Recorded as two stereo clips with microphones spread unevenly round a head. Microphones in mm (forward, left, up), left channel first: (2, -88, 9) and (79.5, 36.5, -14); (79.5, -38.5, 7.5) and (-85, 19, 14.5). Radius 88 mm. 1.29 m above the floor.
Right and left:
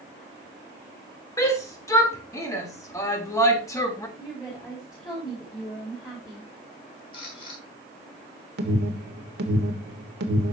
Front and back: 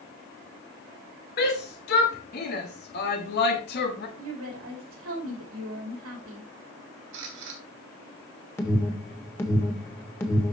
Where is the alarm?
60° left, 1.5 m.